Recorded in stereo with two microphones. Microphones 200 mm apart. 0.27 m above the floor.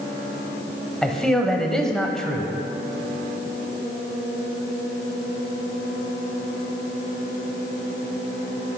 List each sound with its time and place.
1.0 s a man speaking: 5° left (ahead or behind), 1.0 m